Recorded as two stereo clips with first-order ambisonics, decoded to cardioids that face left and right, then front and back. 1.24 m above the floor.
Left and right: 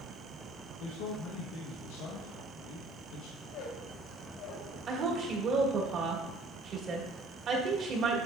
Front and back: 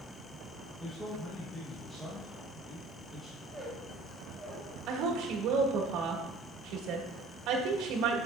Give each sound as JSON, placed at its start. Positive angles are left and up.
{"t": 0.8, "sound": "a man speaking", "azimuth_deg": 85, "distance_m": 1.0}
{"t": 3.4, "sound": "a squeak", "azimuth_deg": 90, "distance_m": 2.5}
{"t": 4.9, "sound": "a woman speaking", "azimuth_deg": -145, "distance_m": 1.5}